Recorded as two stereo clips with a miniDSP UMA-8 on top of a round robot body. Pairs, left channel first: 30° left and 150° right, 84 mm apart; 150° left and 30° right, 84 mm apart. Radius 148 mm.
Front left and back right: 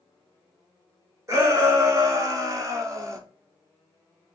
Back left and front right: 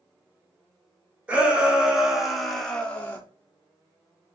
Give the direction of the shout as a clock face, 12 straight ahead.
3 o'clock.